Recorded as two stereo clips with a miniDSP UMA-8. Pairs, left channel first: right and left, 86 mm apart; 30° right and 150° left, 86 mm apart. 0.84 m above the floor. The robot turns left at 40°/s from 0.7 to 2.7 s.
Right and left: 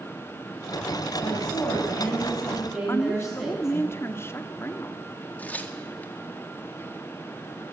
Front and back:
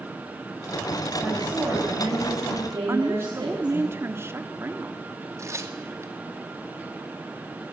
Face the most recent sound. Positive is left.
turn(degrees=-160)